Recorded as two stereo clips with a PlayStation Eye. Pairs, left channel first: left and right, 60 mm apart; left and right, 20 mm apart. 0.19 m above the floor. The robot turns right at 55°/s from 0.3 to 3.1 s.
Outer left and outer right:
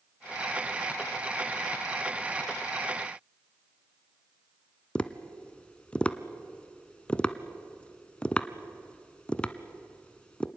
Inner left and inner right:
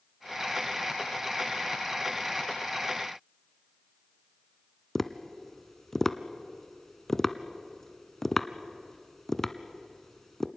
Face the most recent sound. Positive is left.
turn(degrees=20)  # may be behind; listen again after turning